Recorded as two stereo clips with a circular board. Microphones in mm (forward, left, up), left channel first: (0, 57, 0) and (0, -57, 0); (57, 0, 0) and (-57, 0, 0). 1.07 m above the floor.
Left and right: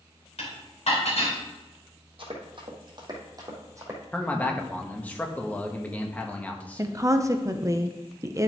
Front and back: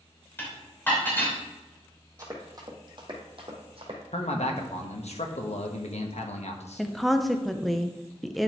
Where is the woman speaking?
90° right, 0.6 m.